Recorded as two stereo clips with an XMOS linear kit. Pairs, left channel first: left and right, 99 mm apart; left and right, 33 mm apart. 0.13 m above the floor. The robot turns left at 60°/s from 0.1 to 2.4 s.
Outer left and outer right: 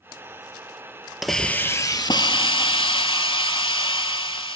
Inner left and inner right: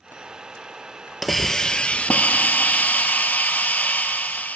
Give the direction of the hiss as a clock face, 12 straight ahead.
6 o'clock.